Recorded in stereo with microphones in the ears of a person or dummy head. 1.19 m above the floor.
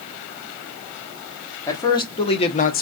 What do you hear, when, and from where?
1.7 s a man speaking: 20° left (ahead or behind), 1.2 m; by 2.8 s 45° left (ahead or behind), 0.7 m